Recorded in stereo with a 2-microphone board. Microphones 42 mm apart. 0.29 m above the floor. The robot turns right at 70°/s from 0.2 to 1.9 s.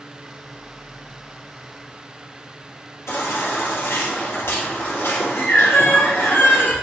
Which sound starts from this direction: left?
A baby crying, at 3.1 s.